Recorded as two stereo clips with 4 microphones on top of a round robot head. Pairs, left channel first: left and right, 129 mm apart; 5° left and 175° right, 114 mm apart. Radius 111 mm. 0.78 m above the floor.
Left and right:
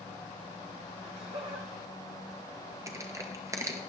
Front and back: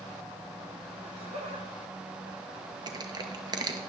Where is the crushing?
145° right, 1.0 m.